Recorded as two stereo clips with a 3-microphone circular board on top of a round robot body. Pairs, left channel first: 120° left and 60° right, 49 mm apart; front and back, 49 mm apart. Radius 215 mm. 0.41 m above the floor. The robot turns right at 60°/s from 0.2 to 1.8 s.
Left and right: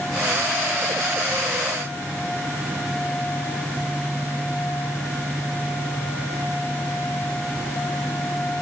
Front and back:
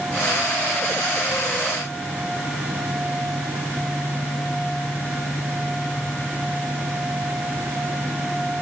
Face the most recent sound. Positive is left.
No sound to turn to.